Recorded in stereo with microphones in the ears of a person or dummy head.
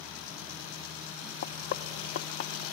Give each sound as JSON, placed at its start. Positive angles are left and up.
{"t": 1.4, "sound": "knocking", "side_deg": 55, "distance_m": 0.6}